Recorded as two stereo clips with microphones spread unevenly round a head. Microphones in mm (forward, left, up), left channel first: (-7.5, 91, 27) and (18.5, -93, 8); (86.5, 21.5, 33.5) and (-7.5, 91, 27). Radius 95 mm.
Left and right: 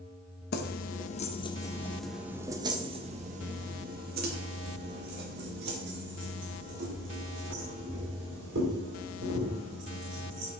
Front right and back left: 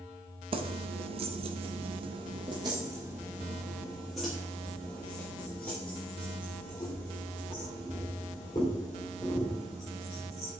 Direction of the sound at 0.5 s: 110° left.